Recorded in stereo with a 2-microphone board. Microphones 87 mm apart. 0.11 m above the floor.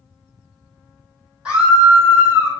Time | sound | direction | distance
1.4 | a scream | 10° right (ahead or behind) | 3.5 m